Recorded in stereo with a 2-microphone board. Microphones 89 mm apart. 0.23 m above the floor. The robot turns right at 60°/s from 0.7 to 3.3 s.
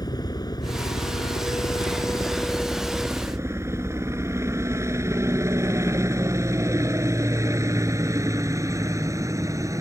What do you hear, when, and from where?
0.0 s a helicopter: 50° left (ahead or behind); by 9.8 s 35° right (ahead or behind)